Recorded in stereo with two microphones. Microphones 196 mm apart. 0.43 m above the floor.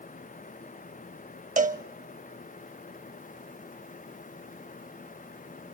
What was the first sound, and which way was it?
A cowbell, 40° right (ahead or behind).